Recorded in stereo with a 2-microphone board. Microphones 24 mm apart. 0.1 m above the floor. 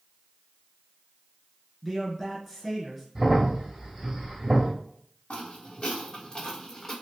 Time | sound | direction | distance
1.8 | a man speaking | 5° left (ahead or behind) | 1.4 m
3.1 | a crack | 20° right (ahead or behind) | 1.8 m
5.3 | footsteps | 55° left (ahead or behind) | 1.6 m